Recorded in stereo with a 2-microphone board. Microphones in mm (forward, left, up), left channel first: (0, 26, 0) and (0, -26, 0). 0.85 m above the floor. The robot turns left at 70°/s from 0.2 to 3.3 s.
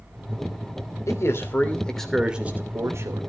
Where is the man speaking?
75° left, 2.5 m; by 3.2 s 75° right, 2.5 m.